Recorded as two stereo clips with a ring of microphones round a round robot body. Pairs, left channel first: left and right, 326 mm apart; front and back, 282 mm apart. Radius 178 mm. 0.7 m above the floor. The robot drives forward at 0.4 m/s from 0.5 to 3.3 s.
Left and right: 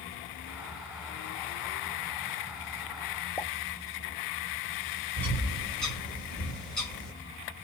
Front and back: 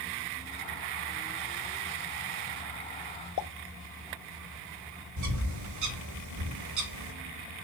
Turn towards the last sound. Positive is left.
turn(degrees=180)